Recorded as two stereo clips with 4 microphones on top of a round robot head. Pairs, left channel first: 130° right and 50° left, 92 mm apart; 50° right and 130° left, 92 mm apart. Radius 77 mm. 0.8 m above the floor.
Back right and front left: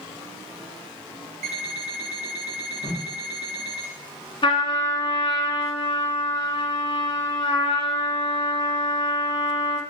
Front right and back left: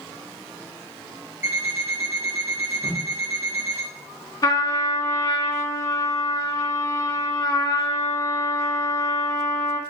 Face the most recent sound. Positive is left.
turn(degrees=-95)